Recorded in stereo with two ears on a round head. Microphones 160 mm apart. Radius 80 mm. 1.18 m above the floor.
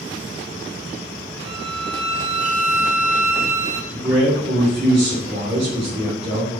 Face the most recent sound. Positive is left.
turn(degrees=-30)  # may be behind; listen again after turning